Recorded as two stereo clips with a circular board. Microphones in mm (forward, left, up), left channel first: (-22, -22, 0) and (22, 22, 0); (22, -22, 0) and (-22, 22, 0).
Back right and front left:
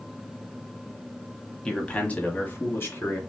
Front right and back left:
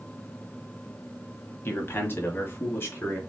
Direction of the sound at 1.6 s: 60° right.